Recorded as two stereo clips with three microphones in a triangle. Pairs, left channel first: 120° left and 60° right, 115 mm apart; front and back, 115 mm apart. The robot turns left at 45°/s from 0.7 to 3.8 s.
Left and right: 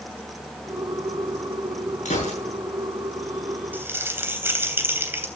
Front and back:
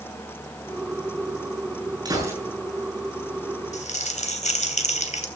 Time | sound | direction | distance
2.0 | a gunshot | 125° left | 7.5 m
3.7 | crumpling | 15° left | 3 m